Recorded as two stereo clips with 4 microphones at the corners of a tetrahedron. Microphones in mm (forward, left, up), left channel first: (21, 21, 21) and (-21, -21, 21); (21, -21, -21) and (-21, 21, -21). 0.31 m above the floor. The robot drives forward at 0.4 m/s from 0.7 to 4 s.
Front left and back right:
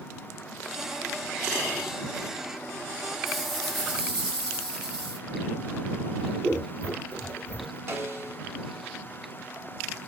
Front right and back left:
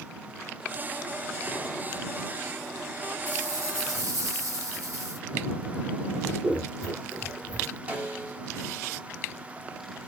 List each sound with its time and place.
3.3 s a rattle: 135° left, 0.9 m; by 5.2 s 145° left, 1.1 m
6.2 s scissors: 155° right, 2.0 m
7.9 s a snare drum: 165° right, 0.7 m